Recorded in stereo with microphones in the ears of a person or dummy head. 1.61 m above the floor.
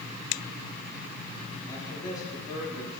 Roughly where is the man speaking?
Left.